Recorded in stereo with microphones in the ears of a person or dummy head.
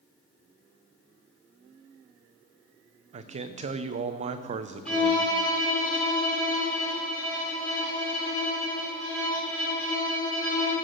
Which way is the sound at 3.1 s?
40° right (ahead or behind).